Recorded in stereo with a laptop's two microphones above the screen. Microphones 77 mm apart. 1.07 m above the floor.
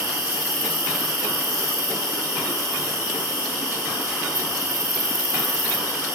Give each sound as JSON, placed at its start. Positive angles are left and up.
{"t": 0.0, "sound": "an insect", "side_deg": -45, "distance_m": 0.9}